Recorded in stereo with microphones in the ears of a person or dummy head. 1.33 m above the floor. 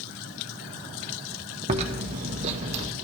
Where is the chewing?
35° right (ahead or behind), 1.1 m.